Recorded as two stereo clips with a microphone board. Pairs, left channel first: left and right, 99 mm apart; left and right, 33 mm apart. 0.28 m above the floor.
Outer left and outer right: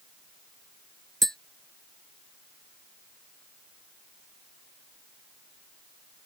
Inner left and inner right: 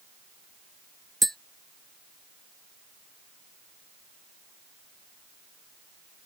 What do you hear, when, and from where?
1.2 s tapping: centre (ahead or behind)